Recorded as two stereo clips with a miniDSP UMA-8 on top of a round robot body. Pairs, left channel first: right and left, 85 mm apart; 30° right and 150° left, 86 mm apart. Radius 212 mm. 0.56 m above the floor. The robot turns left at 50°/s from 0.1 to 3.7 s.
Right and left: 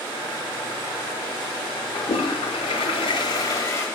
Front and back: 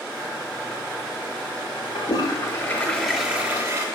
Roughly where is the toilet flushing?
Ahead right.